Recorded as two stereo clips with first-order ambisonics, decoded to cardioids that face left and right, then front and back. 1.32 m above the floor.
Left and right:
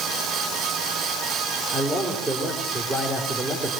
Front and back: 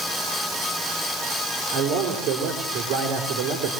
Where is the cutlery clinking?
I don't hear cutlery clinking.